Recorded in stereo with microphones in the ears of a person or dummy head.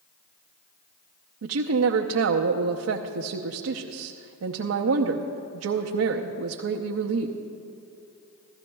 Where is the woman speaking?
75° right (ahead or behind), 0.7 m.